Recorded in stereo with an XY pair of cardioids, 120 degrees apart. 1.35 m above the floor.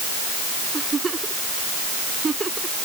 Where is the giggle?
25° right.